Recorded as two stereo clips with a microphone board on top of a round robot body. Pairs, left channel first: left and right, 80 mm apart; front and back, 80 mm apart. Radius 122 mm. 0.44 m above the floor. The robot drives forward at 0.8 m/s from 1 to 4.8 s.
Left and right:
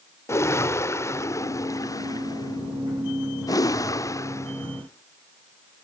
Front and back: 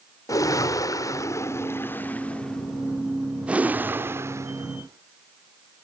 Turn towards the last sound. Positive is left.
turn(degrees=140)